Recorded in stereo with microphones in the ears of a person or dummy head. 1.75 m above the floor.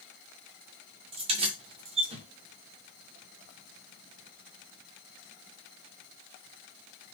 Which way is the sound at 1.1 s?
25° right (ahead or behind).